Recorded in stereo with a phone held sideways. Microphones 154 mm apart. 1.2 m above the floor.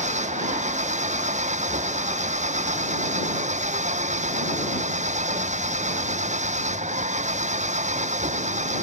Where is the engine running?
50° right (ahead or behind).